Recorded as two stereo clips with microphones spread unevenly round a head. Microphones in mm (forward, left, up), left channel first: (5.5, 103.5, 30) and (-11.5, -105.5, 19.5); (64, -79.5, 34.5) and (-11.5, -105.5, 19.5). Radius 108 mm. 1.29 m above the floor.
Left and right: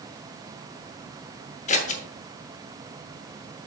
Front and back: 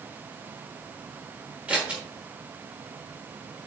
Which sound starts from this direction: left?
Scissors, at 1.7 s.